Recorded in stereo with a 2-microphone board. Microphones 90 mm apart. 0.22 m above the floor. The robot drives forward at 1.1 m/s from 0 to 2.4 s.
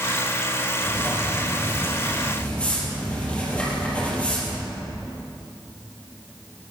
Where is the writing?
30° left (ahead or behind), 1.6 m; by 4.7 s 15° left (ahead or behind), 3 m.